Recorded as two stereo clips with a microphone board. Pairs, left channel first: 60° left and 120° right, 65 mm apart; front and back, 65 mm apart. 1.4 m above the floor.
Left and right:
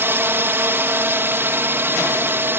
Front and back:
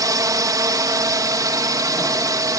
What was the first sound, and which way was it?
A drone, 170° right.